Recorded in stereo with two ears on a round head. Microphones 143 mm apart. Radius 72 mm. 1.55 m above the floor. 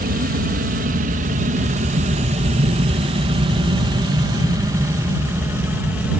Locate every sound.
0.0 s an aircraft: 60° right (ahead or behind); by 6.2 s 10° right (ahead or behind)